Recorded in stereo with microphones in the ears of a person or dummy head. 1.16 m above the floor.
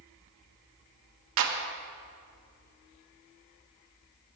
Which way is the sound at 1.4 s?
65° right (ahead or behind).